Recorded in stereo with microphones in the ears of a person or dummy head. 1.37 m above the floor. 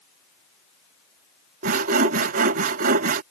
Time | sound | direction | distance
1.6 | sawing | 55° right (ahead or behind) | ?